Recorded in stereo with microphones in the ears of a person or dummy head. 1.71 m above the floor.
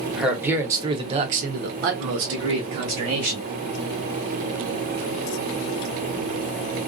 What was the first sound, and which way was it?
A man speaking, 5° right (ahead or behind).